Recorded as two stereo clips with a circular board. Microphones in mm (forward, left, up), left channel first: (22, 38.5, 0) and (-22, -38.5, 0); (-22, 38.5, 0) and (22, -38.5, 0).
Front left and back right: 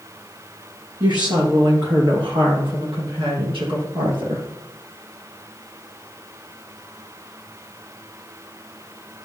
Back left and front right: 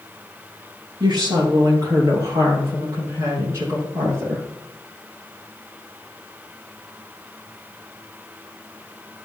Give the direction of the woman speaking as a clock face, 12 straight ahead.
3 o'clock.